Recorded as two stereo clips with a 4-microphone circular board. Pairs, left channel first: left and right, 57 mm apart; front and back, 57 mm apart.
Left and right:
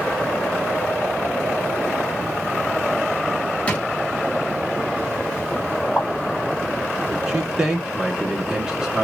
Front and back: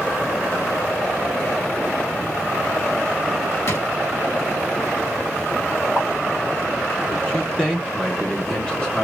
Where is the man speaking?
35° right, 1.2 m.